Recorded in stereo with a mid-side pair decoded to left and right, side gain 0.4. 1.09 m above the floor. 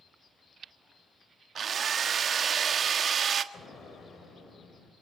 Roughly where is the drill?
Ahead right.